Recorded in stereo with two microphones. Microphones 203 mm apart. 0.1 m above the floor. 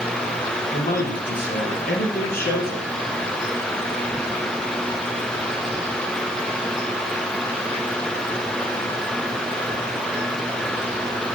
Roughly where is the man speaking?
Left.